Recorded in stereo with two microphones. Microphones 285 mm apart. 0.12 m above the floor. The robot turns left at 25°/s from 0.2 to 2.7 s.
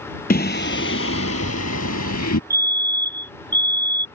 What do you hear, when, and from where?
0.3 s singing: 145° left; by 2.4 s 90° left
2.5 s a fire alarm: 10° right (ahead or behind); by 4.1 s 15° right (ahead or behind)